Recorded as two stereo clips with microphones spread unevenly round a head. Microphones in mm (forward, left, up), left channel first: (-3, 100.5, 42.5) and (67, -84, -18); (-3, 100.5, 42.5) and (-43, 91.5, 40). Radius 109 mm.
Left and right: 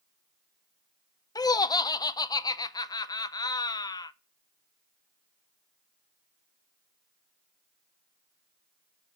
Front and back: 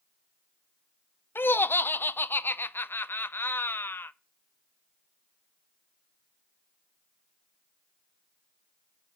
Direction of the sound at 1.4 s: 30° left.